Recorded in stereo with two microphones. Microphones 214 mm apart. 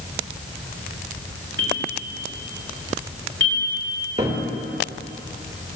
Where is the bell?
65° right (ahead or behind), 3 m.